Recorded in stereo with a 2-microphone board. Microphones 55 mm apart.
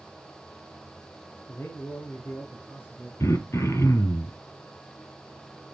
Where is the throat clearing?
60° left (ahead or behind), 1.2 m.